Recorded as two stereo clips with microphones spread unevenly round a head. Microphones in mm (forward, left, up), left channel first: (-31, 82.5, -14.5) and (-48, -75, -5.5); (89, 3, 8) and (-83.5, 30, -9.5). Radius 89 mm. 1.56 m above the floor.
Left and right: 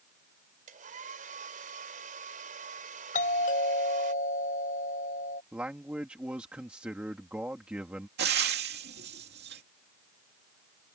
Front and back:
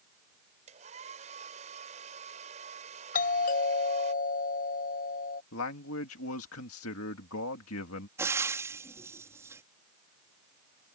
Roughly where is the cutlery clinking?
I don't hear cutlery clinking.